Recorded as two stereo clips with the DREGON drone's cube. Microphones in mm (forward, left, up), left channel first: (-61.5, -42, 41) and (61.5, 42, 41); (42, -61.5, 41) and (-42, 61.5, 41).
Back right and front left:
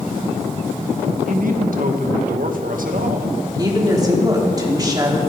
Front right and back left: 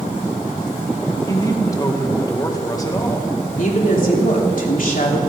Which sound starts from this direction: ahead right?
A woman speaking, at 3.6 s.